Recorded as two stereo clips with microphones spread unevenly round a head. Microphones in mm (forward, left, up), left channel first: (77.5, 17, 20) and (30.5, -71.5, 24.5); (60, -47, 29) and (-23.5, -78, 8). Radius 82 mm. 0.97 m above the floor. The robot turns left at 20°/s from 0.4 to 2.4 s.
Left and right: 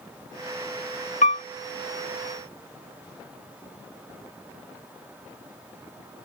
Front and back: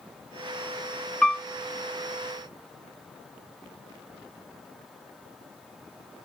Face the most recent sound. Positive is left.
turn(degrees=80)